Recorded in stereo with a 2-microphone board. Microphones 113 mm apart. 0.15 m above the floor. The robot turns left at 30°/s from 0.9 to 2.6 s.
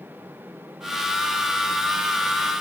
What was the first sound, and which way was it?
Only background noise.